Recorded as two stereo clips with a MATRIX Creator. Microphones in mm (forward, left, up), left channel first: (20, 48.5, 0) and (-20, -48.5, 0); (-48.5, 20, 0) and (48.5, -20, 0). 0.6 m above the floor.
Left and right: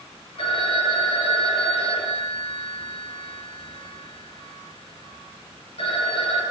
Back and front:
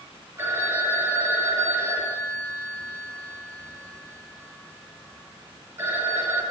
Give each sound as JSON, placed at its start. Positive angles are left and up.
{"t": 0.4, "sound": "a phone ringing", "azimuth_deg": 40, "distance_m": 7.5}